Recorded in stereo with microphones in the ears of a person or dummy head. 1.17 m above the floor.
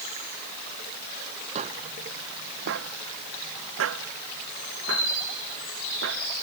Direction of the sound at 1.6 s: 35° right (ahead or behind).